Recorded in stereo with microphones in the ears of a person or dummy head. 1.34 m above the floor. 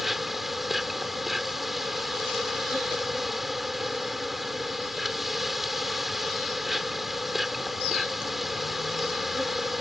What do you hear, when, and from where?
0.0 s an insect: centre (ahead or behind)